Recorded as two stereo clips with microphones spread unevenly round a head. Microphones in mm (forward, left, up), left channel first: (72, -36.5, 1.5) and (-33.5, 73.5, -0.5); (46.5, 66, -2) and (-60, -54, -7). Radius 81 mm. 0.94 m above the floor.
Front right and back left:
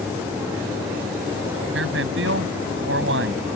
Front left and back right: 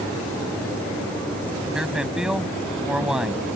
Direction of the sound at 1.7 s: 140° left.